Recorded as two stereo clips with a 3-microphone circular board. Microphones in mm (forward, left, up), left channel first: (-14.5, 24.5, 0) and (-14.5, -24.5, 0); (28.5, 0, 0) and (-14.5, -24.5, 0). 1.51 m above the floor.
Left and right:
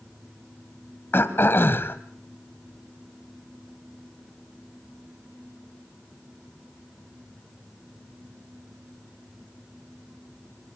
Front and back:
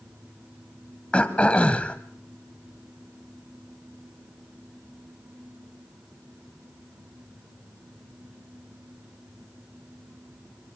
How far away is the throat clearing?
About 1.9 m.